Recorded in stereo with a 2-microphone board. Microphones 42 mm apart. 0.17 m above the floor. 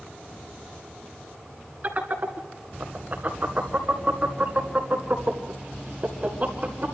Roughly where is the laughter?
Right.